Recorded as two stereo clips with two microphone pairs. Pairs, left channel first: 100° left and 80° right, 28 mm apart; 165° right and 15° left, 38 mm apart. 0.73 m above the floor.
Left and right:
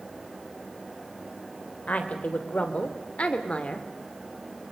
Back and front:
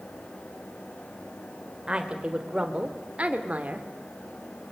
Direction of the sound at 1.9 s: 80° left.